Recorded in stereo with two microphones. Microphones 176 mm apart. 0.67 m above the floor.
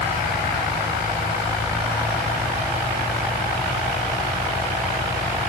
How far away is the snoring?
No snoring in this recording.